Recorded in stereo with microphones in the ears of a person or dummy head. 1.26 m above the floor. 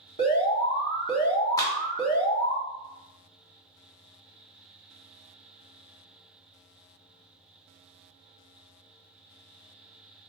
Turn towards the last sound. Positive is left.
turn(degrees=20)  # may be behind; listen again after turning